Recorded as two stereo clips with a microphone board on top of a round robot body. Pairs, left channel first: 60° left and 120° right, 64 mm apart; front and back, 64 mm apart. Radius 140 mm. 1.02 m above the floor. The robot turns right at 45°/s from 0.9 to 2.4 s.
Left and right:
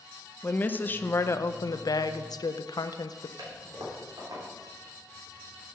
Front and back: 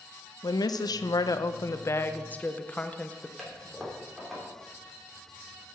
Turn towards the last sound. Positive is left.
turn(degrees=-90)